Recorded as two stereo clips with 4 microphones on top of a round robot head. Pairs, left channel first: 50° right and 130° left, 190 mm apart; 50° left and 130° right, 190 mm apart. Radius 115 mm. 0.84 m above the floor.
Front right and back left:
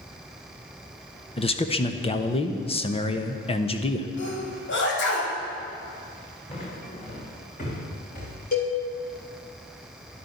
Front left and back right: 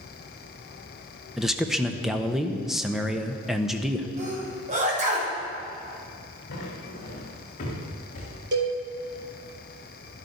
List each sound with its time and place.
1.4 s a man speaking: 40° right, 1.1 m
4.2 s a sneeze: 75° right, 4.5 m
6.5 s footsteps: 10° left, 4 m; by 8.4 s 5° right, 4 m
8.5 s a cowbell: 95° right, 4 m